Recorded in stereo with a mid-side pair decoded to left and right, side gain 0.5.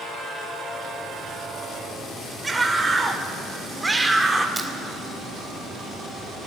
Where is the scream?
15° right, 4.5 m.